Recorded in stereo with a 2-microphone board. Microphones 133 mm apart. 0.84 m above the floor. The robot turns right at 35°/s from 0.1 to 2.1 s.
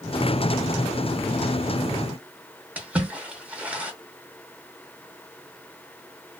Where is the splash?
10° right (ahead or behind), 0.7 m.